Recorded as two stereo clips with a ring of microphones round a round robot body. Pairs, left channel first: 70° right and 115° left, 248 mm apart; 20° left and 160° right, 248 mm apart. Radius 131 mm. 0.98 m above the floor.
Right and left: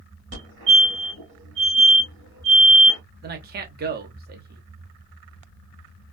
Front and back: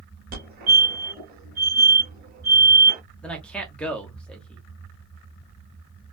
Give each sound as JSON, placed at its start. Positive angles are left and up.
{"t": 0.3, "sound": "a fire alarm", "azimuth_deg": 150, "distance_m": 2.5}
{"t": 3.2, "sound": "a man speaking", "azimuth_deg": 105, "distance_m": 0.8}